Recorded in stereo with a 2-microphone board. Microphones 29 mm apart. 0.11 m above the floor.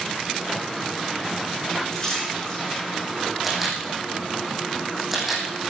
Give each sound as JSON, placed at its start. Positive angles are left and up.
{"t": 1.9, "sound": "a splash", "side_deg": 20, "distance_m": 8.0}
{"t": 3.4, "sound": "a camera shutter", "side_deg": -5, "distance_m": 3.5}